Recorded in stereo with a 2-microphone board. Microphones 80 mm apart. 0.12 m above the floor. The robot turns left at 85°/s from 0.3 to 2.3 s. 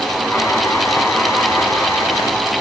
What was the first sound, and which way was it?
Only background noise.